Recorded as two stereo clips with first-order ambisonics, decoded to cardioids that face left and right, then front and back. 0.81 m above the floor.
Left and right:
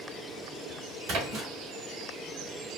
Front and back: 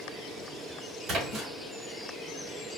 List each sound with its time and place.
1.1 s a splash: 130° right, 2.5 m